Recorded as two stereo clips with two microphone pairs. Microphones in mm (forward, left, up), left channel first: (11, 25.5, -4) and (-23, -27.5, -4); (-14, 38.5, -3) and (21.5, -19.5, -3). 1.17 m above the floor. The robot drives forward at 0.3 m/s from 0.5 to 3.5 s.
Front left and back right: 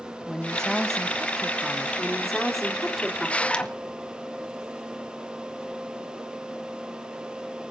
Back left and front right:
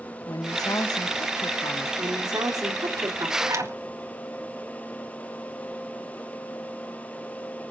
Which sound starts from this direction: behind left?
A woman speaking, at 0.3 s.